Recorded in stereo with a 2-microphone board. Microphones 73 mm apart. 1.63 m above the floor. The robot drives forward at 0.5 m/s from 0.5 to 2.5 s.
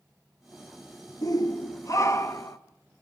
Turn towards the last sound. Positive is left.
turn(degrees=40)  # may be behind; listen again after turning